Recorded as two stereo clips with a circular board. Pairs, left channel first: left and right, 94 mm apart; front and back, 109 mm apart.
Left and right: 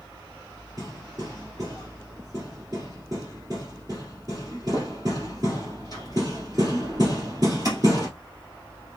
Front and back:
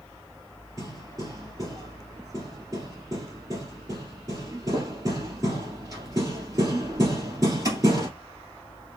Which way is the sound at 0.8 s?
130° right.